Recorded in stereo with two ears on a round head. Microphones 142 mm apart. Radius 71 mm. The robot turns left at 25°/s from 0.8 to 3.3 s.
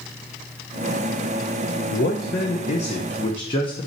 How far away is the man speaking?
About 0.7 m.